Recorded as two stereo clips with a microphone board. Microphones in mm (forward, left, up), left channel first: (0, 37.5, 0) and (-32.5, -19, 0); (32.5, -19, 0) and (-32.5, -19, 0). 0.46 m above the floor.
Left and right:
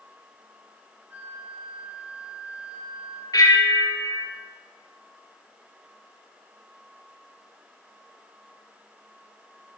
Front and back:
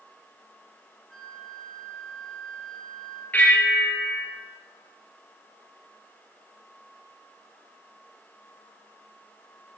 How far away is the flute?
About 1.4 m.